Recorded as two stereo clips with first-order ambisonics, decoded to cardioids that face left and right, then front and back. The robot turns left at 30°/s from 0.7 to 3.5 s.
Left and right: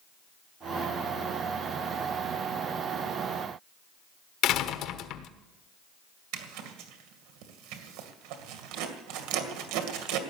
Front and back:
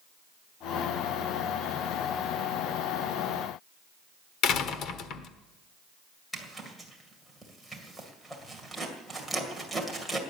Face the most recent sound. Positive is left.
turn(degrees=-90)